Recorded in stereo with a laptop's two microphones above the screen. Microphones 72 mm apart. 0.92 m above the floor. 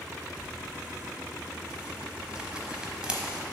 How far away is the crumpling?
About 1.0 m.